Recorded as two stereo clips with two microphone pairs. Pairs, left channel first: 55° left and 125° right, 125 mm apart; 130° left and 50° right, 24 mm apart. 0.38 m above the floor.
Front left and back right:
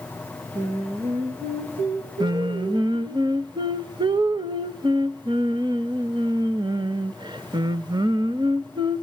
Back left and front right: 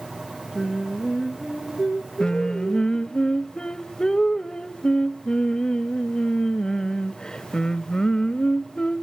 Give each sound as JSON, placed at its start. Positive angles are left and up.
{"t": 0.6, "sound": "singing", "azimuth_deg": -120, "distance_m": 4.5}
{"t": 2.2, "sound": "singing", "azimuth_deg": -175, "distance_m": 0.7}